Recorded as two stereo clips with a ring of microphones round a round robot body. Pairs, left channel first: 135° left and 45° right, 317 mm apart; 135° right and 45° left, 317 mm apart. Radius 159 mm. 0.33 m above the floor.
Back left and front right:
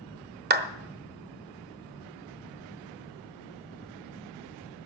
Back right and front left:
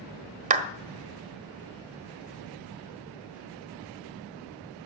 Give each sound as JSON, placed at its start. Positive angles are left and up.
{"t": 0.5, "sound": "a clap", "azimuth_deg": -5, "distance_m": 1.3}